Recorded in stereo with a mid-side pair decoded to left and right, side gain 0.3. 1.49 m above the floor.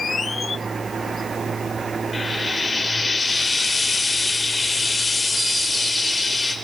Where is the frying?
35° left, 3 m.